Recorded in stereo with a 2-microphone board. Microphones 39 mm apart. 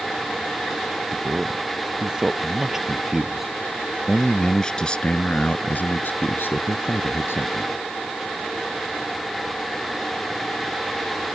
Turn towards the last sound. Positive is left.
turn(degrees=70)  # may be behind; listen again after turning